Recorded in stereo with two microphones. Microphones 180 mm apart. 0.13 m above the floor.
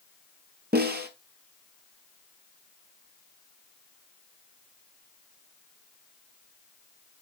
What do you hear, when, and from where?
0.7 s a snare drum: 65° right (ahead or behind), 1.5 m